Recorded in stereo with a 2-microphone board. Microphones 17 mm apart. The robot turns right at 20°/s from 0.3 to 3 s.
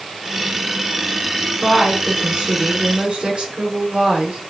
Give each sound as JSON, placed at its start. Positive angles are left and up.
{"t": 1.6, "sound": "a woman speaking", "side_deg": -50, "distance_m": 3.0}